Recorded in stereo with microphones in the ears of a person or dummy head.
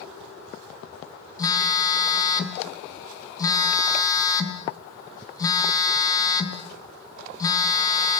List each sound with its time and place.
1.4 s a phone buzzing: 20° left (ahead or behind), 2.5 m